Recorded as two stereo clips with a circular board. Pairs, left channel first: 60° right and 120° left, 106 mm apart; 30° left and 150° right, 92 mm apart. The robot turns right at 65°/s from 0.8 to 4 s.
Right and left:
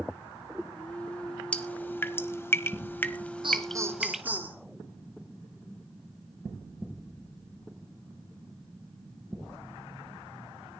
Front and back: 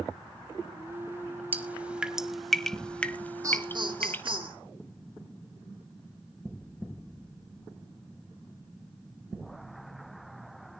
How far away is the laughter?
About 4 m.